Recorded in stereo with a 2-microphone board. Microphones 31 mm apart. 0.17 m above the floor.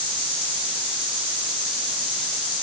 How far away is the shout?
I don't hear a shout.